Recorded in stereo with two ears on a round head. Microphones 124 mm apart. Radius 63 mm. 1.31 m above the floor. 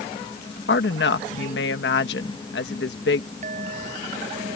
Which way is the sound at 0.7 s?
85° left.